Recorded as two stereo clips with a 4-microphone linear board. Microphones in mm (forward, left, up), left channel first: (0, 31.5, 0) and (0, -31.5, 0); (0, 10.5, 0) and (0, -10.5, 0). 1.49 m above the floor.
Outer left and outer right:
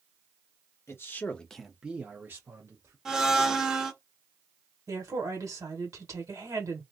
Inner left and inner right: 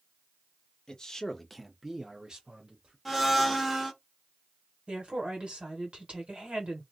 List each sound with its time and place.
0.9 s a man speaking: 45° left (ahead or behind), 0.9 m; by 3.0 s 50° right (ahead or behind), 1.3 m
3.0 s a blender: 10° right (ahead or behind), 0.7 m
4.9 s a woman speaking: 60° right (ahead or behind), 1.7 m